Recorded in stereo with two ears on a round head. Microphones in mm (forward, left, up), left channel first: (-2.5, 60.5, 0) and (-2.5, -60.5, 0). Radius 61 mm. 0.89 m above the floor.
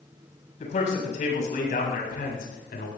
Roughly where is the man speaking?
Left.